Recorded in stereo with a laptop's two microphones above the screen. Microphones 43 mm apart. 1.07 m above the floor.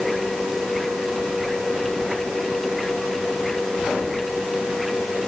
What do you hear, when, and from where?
0.0 s a machine running: centre (ahead or behind)